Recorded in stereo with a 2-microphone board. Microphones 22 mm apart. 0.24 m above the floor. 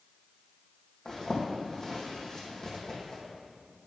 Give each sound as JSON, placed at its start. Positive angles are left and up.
{"t": 1.1, "sound": "a zipper", "side_deg": 30, "distance_m": 2.5}